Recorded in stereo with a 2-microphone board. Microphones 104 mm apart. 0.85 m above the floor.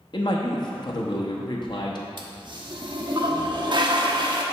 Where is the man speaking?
45° left (ahead or behind), 0.9 m.